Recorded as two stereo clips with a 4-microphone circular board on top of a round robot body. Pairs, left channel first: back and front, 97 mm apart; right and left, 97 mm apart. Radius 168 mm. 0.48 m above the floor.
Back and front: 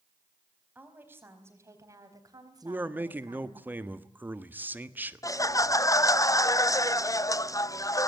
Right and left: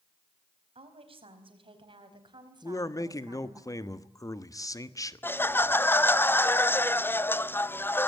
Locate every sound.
0.8 s a woman speaking: 75° left, 4.5 m; by 3.6 s 35° left, 5 m
2.6 s a man speaking: 60° right, 1.6 m
5.2 s laughter: 145° right, 0.9 m